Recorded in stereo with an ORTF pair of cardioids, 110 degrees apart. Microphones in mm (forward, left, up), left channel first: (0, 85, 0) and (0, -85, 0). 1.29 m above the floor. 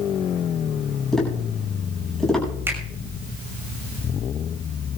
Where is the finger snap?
15° right, 5.5 m.